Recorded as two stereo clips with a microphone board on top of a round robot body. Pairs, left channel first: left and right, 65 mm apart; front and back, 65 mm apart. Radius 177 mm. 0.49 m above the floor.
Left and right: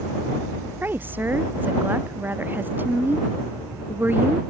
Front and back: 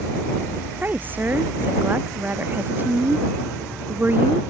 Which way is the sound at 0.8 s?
135° right.